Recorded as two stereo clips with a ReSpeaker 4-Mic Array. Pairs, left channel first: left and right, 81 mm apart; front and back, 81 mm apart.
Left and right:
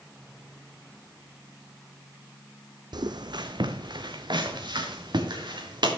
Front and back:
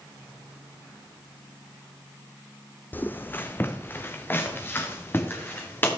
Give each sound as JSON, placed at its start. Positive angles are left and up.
{"t": 2.9, "sound": "footsteps", "azimuth_deg": -65, "distance_m": 0.8}